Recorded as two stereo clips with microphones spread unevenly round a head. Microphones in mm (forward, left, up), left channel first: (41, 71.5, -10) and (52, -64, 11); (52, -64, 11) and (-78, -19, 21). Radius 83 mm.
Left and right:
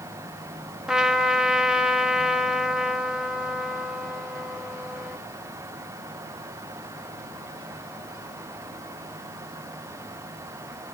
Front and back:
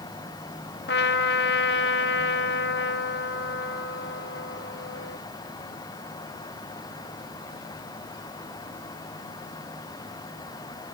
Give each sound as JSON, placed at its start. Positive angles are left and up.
{"t": 0.9, "sound": "a trumpet", "azimuth_deg": 0, "distance_m": 1.4}